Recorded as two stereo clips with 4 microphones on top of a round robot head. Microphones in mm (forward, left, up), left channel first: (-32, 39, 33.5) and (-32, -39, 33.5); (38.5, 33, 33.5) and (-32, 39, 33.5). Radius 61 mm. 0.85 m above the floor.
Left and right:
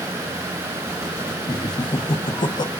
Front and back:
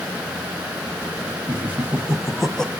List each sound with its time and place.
1.5 s laughter: 115° left, 1.4 m; by 2.7 s 70° left, 1.2 m